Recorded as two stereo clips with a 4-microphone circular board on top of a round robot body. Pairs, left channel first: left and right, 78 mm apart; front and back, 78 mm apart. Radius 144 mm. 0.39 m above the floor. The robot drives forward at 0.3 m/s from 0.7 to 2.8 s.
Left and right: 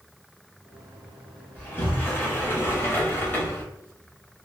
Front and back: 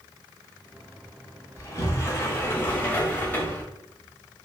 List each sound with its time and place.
1.6 s a sliding door: 30° left, 1.3 m; by 3.6 s 50° left, 1.1 m